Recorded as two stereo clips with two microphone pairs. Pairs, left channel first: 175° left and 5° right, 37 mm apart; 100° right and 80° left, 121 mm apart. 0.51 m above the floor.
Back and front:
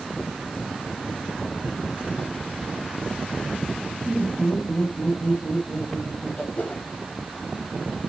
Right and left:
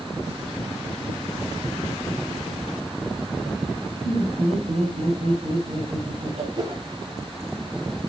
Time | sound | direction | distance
4.0 | laughter | 105° left | 5.5 m
6.5 | a whoosh | 130° left | 2 m